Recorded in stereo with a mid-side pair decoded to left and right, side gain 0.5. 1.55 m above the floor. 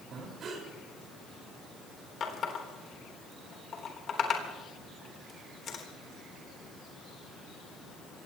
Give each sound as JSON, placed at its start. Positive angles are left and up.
{"t": 0.1, "sound": "breathing", "azimuth_deg": -55, "distance_m": 5.0}
{"t": 2.2, "sound": "a running tap", "azimuth_deg": 50, "distance_m": 3.5}